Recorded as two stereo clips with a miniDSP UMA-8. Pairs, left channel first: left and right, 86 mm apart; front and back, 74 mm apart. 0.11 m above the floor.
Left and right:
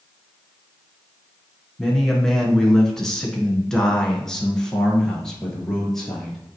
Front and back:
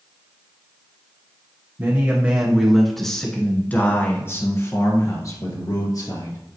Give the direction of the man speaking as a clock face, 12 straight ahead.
6 o'clock.